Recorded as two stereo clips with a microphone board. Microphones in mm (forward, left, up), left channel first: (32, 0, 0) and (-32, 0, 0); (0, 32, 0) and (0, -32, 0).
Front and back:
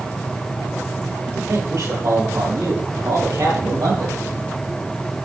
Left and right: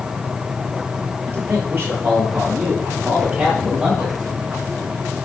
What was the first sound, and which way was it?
A man speaking, 140° right.